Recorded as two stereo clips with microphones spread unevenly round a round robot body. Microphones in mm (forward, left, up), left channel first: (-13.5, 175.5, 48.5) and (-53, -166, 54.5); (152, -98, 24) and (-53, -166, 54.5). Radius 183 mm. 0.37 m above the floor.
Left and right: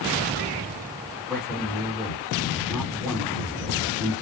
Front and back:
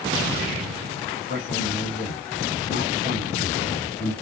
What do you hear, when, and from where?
1.3 s a man speaking: 10° right, 2.5 m